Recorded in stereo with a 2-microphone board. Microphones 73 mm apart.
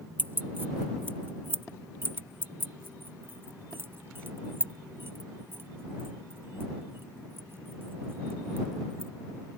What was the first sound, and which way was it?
Keys jangling, 25° right (ahead or behind).